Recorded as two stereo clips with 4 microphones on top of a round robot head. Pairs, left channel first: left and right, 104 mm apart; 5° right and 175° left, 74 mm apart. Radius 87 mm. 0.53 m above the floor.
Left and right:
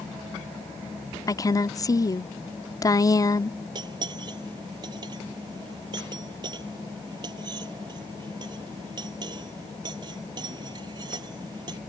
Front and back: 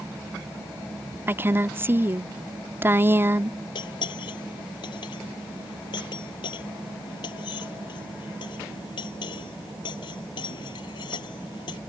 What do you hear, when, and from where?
1.3 s a woman speaking: 125° left
3.8 s cutlery clinking: 35° right